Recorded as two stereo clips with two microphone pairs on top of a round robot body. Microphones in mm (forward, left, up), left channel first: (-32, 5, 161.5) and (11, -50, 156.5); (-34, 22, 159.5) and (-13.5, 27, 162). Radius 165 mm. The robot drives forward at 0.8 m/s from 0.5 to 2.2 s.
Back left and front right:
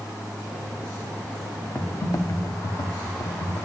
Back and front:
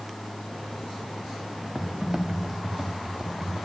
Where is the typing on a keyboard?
70° left, 1.2 m; by 3.6 s 90° left, 1.2 m.